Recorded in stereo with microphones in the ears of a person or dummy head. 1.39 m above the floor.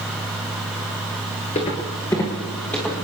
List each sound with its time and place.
1.6 s footsteps: 25° left (ahead or behind), 1.8 m; by 3.0 s 5° left (ahead or behind), 3 m